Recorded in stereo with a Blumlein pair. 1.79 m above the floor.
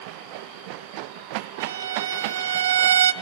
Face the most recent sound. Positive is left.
turn(degrees=-65)